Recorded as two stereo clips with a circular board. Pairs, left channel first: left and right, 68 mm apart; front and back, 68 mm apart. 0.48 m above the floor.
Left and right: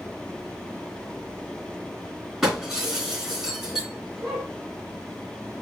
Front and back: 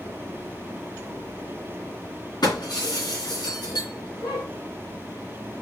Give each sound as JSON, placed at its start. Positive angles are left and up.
{"t": 2.4, "sound": "breaking glass", "azimuth_deg": -10, "distance_m": 3.0}